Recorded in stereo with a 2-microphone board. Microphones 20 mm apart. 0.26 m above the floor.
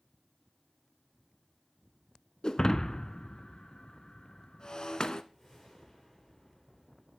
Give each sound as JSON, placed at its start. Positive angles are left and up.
{"t": 2.4, "sound": "breaking glass", "side_deg": 45, "distance_m": 0.6}
{"t": 5.3, "sound": "a whoosh", "side_deg": 25, "distance_m": 5.0}